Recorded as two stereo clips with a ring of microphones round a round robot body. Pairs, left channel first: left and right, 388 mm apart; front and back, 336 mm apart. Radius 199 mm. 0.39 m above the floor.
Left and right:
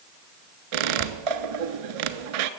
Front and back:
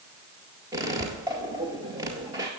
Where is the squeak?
100° right, 0.7 m.